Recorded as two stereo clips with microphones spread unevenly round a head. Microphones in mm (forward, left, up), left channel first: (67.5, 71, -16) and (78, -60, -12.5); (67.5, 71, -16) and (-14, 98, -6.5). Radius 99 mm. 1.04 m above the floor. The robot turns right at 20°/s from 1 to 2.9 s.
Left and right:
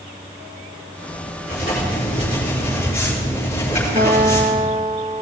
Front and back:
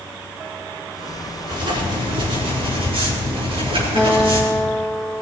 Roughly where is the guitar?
Behind right.